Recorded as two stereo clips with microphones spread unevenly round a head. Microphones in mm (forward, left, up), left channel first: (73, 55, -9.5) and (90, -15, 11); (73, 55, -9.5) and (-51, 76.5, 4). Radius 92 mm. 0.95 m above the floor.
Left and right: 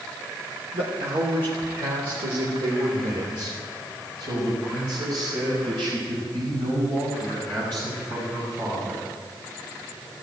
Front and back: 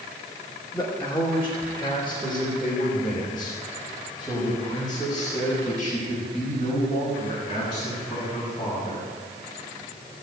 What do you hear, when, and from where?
0.7 s a man speaking: 90° right, 2 m; by 9.1 s 105° right, 7.5 m